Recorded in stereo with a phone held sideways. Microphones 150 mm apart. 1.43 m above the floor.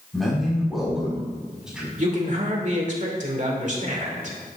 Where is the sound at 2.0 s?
55° right (ahead or behind), 2.5 m.